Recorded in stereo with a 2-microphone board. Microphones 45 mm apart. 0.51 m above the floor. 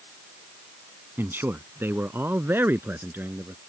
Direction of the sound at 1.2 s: 55° right (ahead or behind).